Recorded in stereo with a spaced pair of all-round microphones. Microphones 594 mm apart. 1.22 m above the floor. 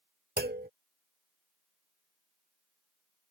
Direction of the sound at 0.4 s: 15° right (ahead or behind).